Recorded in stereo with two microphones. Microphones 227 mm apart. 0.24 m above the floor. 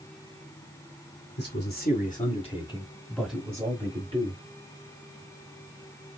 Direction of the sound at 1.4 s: 50° left (ahead or behind).